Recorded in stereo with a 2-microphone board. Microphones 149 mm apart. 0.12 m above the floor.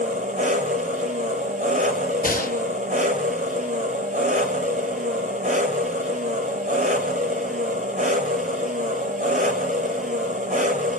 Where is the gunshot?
80° left, 0.6 m.